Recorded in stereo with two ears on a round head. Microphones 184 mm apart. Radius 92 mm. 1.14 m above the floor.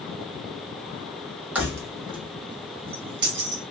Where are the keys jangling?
10° right (ahead or behind), 1.1 m; by 3.6 s 65° right (ahead or behind), 1.2 m.